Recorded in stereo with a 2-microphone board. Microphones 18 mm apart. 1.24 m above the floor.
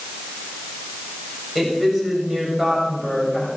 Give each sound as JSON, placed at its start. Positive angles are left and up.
{"t": 1.6, "sound": "a woman speaking", "side_deg": -20, "distance_m": 6.5}